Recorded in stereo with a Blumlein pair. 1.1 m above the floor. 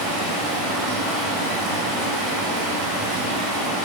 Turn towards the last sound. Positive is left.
turn(degrees=-10)